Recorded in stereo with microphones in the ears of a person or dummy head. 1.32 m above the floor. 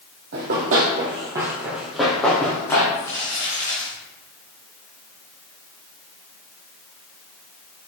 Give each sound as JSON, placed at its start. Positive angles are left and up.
{"t": 0.3, "sound": "running footsteps", "side_deg": -55, "distance_m": 2.5}
{"t": 2.9, "sound": "crumpling", "side_deg": 15, "distance_m": 3.5}